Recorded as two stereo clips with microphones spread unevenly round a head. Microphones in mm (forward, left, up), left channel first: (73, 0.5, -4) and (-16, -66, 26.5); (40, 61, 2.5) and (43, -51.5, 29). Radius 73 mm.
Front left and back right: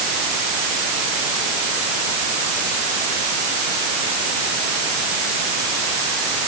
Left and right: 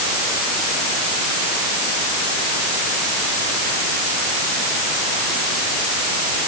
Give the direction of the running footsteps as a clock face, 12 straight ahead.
I don't hear running footsteps.